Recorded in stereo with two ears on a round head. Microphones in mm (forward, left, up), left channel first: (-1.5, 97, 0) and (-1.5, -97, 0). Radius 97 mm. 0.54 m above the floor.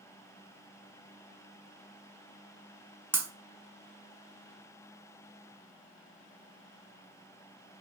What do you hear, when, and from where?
3.1 s breaking glass: 10° right (ahead or behind), 0.6 m